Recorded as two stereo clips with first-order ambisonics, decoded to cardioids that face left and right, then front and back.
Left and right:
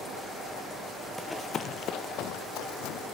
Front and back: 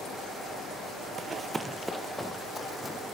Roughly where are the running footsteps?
Behind.